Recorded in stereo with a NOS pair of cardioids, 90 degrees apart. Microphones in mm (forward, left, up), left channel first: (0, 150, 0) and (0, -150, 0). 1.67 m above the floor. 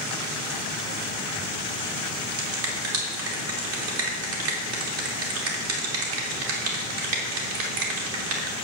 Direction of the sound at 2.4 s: 50° right.